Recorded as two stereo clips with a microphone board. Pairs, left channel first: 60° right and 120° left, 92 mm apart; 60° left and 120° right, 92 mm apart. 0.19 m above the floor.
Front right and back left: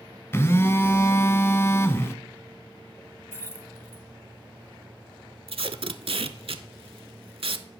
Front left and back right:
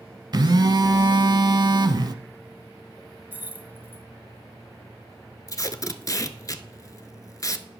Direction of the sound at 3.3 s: 70° right.